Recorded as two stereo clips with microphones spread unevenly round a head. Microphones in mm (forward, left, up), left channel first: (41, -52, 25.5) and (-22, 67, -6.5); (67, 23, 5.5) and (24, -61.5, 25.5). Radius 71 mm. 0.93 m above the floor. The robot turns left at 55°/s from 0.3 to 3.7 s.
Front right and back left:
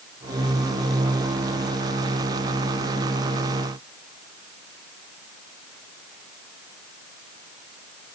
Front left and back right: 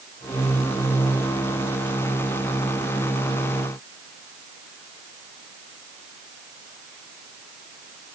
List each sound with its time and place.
Only background noise.